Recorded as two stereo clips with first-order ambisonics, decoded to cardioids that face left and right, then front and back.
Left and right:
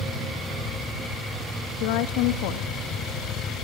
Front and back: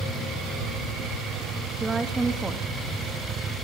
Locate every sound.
1.8 s a woman speaking: 100° left, 2.5 m